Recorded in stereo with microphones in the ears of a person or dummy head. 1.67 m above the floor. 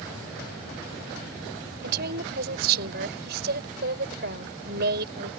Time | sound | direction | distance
1.8 | a woman speaking | 50° right (ahead or behind) | ?